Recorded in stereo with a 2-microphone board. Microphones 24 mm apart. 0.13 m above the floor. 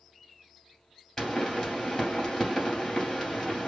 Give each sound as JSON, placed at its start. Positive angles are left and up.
{"t": 1.2, "sound": "a pop", "side_deg": 20, "distance_m": 2.5}